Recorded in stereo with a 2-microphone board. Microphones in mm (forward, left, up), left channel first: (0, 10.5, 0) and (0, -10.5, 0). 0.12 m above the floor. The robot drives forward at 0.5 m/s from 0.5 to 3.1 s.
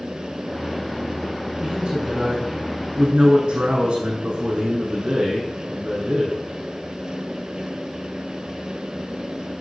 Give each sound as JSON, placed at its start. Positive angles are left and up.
{"t": 1.6, "sound": "a man speaking", "side_deg": -60, "distance_m": 7.5}